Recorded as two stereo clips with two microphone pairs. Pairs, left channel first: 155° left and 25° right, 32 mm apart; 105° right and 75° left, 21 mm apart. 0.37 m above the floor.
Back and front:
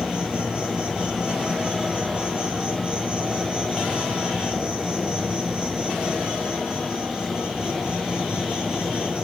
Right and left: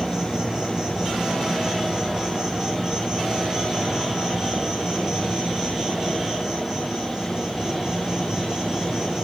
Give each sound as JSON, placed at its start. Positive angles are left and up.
{"t": 0.0, "sound": "an insect", "azimuth_deg": 25, "distance_m": 3.0}